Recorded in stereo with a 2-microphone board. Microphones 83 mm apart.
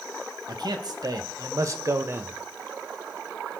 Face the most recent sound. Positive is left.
turn(degrees=-25)  # may be behind; listen again after turning